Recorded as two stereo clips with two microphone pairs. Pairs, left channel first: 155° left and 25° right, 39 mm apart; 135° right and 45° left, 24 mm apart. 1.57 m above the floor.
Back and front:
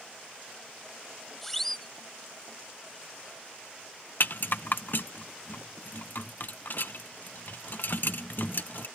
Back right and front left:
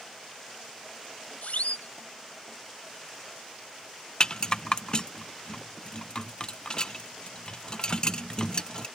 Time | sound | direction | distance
1.4 | a siren | 125° right | ?
4.2 | a rattle | 175° left | ?